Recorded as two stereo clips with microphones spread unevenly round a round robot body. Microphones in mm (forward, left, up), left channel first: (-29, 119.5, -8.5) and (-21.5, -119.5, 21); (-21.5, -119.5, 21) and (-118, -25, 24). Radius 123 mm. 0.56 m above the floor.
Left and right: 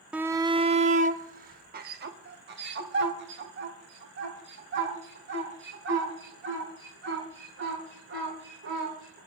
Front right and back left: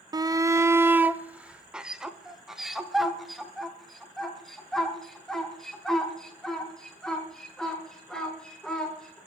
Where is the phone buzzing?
No phone buzzing in this recording.